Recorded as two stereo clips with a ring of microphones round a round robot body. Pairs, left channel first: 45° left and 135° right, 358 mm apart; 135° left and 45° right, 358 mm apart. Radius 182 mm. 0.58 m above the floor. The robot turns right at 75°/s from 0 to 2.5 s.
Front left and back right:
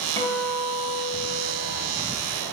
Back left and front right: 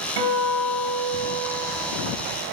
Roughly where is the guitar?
Ahead right.